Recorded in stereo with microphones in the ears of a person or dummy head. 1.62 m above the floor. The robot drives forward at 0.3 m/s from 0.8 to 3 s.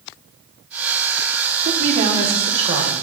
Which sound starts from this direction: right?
A woman speaking, at 1.6 s.